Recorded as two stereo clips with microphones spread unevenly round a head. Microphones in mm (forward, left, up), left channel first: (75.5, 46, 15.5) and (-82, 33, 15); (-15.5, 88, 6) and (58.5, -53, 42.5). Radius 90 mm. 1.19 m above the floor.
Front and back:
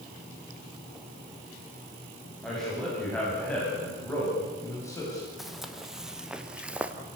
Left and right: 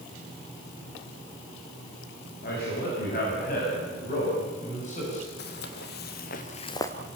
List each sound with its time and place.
2.4 s a man speaking: 95° left, 8.5 m; by 5.3 s 70° left, 8 m
5.4 s footsteps: 95° left, 2.5 m; by 7.0 s 130° right, 1.1 m